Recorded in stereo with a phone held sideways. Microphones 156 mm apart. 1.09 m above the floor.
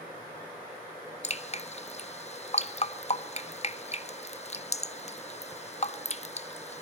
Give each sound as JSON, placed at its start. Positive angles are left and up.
{"t": 1.2, "sound": "dripping", "side_deg": 45, "distance_m": 1.2}